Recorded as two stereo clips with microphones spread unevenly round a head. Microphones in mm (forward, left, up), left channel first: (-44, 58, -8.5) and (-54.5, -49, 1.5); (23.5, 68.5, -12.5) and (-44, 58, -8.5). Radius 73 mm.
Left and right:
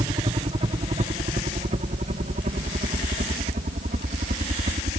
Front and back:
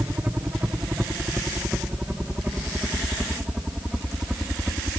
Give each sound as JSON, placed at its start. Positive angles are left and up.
{"t": 0.0, "sound": "a helicopter", "azimuth_deg": -105}